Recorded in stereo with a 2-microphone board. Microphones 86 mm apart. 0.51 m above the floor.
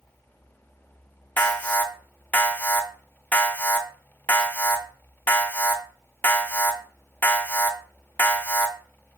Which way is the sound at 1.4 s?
20° left (ahead or behind).